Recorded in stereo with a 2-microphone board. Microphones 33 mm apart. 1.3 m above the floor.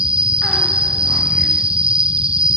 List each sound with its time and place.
0.0 s an insect: 30° right (ahead or behind), 0.8 m